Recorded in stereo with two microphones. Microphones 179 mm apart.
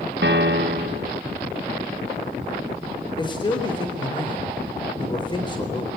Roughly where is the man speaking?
Left.